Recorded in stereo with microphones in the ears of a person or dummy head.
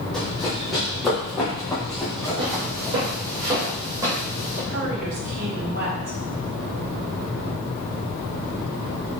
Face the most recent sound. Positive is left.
turn(degrees=-60)  # may be behind; listen again after turning